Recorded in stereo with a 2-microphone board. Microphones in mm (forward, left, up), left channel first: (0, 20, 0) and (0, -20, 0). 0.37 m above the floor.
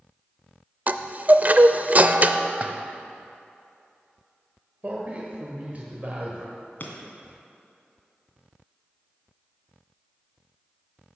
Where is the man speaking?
40° right (ahead or behind), 1.4 m.